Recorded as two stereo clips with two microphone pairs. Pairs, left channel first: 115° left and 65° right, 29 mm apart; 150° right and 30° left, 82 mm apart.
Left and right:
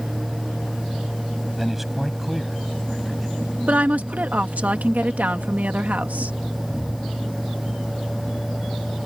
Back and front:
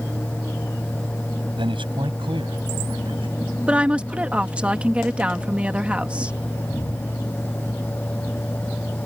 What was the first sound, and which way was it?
A man speaking, 20° left.